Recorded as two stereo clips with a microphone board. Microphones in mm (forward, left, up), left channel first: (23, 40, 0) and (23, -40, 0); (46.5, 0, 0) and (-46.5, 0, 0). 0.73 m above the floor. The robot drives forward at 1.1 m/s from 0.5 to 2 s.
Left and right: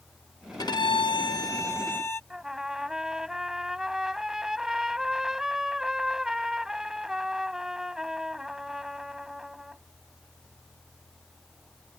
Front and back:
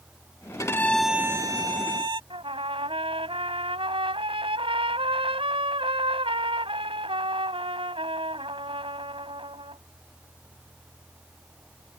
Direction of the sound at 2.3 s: 175° right.